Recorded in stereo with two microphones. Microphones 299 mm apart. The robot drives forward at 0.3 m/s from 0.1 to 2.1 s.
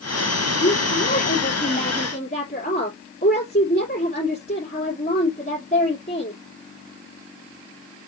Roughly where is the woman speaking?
Left.